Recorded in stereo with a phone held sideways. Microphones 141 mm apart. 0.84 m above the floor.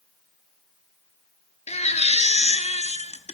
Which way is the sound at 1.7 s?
50° left (ahead or behind).